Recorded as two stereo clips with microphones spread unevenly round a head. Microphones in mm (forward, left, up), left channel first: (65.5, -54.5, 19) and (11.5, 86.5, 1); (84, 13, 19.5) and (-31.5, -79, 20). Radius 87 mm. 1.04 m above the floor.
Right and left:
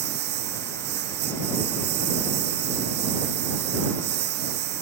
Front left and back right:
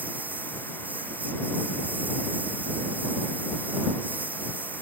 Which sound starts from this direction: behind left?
A lawn mower, at 0.0 s.